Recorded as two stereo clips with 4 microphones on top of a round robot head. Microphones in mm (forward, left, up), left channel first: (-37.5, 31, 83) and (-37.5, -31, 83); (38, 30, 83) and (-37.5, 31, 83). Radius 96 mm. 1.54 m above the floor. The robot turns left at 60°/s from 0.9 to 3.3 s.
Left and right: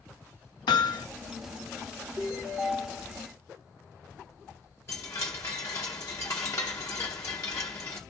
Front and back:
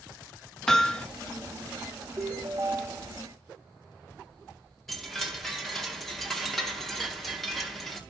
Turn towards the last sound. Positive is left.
turn(degrees=85)